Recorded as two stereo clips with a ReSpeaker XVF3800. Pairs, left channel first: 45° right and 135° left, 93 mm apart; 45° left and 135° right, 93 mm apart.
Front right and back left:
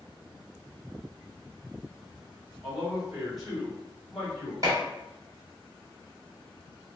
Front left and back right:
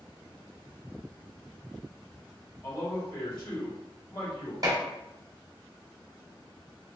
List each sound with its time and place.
2.6 s a man speaking: 50° left, 2.0 m
4.6 s dishes clattering: straight behind, 1.2 m